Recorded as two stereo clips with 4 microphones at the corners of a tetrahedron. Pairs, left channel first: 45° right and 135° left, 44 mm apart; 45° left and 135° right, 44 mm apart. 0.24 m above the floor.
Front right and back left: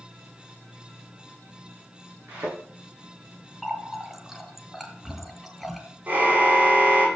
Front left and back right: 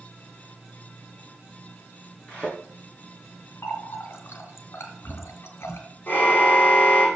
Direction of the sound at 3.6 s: 45° left.